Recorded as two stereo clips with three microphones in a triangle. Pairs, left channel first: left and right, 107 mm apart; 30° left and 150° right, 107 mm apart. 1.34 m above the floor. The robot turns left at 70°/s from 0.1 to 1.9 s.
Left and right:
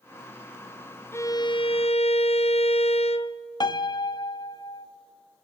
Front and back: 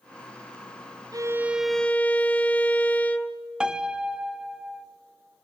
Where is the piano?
130° left, 0.6 m.